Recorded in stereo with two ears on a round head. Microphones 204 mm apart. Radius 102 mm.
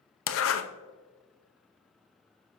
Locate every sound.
0.3 s a zipper: 60° left (ahead or behind), 0.7 m